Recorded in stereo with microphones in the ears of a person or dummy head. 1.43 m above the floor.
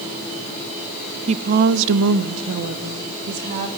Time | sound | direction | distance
1.3 | a woman speaking | 30° right (ahead or behind) | 1.0 m